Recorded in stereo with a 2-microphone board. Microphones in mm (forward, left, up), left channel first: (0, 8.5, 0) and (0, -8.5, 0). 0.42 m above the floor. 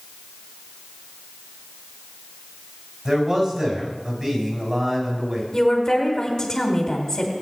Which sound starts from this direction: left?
A woman speaking, at 5.5 s.